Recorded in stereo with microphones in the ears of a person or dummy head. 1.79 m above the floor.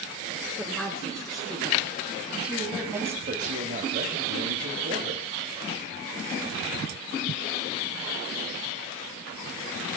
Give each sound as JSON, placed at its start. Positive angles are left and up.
{"t": 0.6, "sound": "a woman speaking", "side_deg": 5, "distance_m": 7.0}
{"t": 3.3, "sound": "a man speaking", "side_deg": -45, "distance_m": 3.5}